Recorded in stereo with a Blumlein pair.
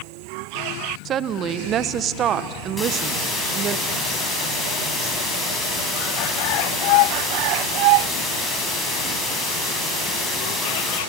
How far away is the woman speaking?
About 1.1 m.